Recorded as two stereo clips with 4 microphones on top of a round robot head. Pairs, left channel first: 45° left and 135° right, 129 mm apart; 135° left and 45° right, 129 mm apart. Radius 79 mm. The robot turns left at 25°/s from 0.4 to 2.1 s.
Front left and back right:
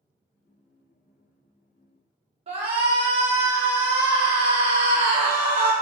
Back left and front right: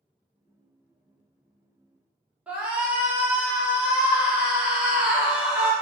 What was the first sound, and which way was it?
A shout, 125° right.